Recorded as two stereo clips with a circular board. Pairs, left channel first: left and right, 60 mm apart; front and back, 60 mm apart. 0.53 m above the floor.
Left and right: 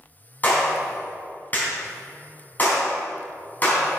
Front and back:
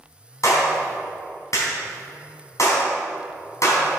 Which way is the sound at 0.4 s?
30° left.